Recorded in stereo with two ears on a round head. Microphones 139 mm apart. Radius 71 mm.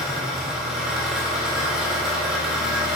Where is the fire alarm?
I don't hear a fire alarm.